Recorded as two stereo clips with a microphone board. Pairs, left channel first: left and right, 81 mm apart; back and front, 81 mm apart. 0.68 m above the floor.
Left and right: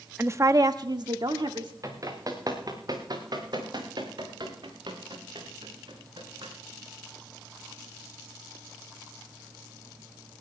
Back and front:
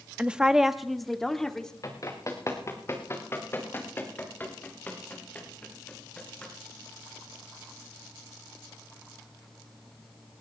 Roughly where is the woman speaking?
Ahead right.